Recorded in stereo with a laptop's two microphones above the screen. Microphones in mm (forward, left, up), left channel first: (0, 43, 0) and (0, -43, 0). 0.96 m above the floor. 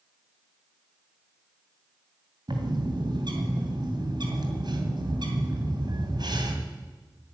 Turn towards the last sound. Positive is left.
turn(degrees=-65)  # may be behind; listen again after turning